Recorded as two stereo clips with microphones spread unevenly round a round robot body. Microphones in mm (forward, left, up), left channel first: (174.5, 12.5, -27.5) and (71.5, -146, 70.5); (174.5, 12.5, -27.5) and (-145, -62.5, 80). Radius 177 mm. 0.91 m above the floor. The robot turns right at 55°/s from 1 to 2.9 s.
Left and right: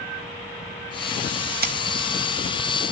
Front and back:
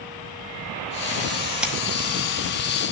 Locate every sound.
1.6 s scissors: 70° right, 1.6 m; by 1.8 s 65° right, 1.6 m